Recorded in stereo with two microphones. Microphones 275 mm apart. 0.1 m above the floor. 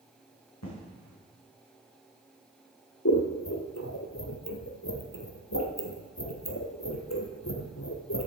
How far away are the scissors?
About 1.6 m.